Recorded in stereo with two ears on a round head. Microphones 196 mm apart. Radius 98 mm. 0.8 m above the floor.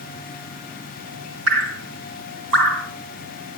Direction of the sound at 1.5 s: 70° right (ahead or behind).